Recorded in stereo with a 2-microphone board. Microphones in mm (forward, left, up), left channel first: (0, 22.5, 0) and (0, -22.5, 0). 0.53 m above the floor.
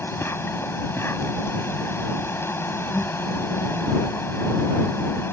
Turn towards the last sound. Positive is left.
turn(degrees=75)  # may be behind; listen again after turning